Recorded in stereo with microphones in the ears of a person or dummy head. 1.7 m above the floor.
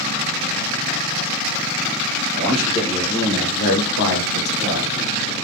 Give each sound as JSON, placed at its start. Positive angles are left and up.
{"t": 2.4, "sound": "a man speaking", "side_deg": -5, "distance_m": 1.6}